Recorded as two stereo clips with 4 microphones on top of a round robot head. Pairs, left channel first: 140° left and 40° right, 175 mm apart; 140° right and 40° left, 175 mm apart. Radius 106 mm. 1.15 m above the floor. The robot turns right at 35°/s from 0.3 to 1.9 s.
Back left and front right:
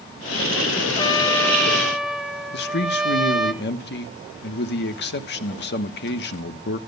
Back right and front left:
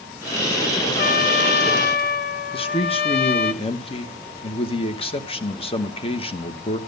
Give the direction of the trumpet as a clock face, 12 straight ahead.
5 o'clock.